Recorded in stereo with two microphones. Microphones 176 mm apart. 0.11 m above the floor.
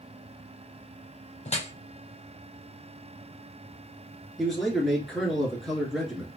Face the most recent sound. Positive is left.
turn(degrees=0)  # may be behind; listen again after turning